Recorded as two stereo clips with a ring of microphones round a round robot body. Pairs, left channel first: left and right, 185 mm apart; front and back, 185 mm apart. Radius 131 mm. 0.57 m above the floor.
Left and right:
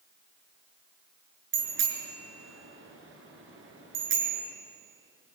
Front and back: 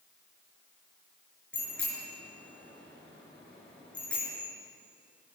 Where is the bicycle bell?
85° right, 5.5 m.